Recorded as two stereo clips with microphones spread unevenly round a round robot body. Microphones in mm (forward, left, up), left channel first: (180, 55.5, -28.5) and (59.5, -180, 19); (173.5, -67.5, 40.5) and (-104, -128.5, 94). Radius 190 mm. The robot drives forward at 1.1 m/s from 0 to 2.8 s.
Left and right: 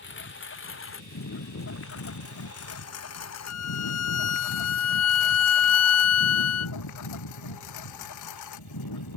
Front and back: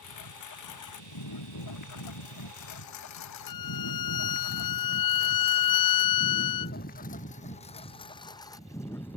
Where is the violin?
40° left.